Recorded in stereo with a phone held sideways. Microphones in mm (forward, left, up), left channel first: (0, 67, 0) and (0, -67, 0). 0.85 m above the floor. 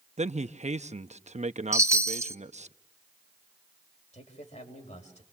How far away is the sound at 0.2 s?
About 0.9 m.